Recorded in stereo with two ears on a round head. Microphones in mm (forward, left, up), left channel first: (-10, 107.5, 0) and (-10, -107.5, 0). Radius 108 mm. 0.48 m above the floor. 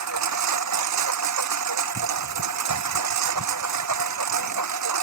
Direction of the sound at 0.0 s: 85° right.